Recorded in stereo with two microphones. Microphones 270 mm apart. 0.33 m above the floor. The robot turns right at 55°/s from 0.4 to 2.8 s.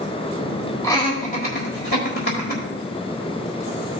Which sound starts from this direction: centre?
Laughter, at 0.8 s.